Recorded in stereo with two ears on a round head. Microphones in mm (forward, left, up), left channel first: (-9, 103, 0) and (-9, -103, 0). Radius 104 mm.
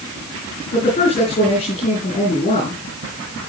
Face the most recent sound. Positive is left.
turn(degrees=30)  # may be behind; listen again after turning